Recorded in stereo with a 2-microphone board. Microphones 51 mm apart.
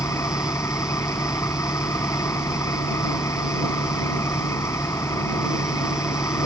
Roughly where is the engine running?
Left.